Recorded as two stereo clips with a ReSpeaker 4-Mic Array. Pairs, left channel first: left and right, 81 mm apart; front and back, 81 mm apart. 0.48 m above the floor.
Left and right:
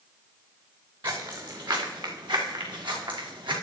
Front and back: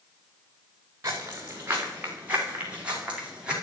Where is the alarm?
No alarm in this recording.